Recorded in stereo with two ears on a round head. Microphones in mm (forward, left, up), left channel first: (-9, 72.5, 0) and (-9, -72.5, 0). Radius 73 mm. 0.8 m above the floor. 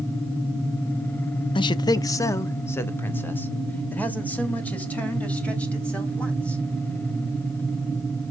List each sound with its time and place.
1.6 s a man speaking: 30° left (ahead or behind), 0.7 m; by 6.6 s 10° left (ahead or behind), 5 m